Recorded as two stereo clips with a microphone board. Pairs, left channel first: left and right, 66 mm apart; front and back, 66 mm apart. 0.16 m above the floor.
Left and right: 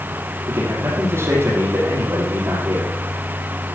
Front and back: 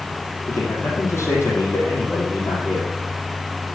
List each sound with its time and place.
0.5 s a man speaking: 45° right, 6 m